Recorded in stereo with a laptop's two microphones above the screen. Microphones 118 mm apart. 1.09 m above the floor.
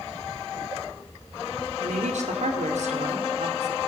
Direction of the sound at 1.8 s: 80° right.